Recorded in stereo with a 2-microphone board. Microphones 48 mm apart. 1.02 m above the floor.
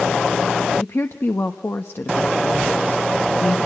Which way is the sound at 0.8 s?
65° left (ahead or behind).